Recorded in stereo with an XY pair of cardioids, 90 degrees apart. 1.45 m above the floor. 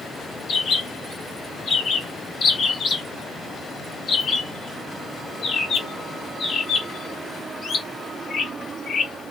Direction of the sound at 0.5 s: 55° left.